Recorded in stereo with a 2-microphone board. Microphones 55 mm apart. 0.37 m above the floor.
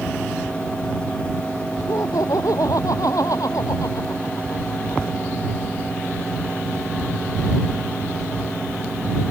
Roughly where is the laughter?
Left.